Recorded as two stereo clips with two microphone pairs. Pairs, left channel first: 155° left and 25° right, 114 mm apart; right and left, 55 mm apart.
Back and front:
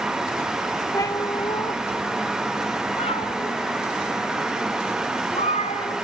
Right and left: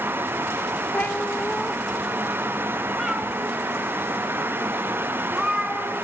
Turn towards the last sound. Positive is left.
turn(degrees=170)